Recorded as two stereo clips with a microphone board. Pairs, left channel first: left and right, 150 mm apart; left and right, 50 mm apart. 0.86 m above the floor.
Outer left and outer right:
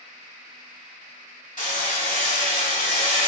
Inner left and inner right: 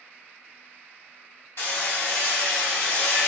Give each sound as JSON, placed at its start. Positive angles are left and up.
{"t": 1.6, "sound": "hammering", "side_deg": 65, "distance_m": 1.3}